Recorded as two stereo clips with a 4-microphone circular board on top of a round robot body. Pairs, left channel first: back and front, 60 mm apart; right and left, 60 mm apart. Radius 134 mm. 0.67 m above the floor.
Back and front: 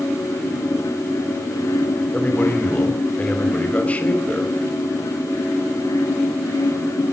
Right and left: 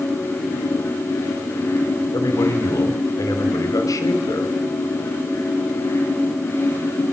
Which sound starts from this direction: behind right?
A man speaking, at 2.1 s.